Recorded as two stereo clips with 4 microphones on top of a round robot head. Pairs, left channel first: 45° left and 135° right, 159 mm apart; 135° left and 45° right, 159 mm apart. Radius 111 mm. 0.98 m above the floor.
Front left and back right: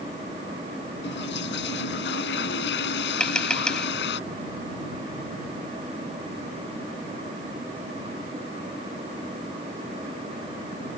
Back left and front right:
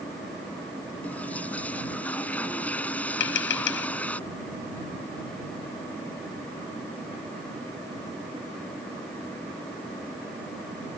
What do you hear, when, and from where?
1.0 s a toilet flushing: 50° left
3.2 s tapping: 130° left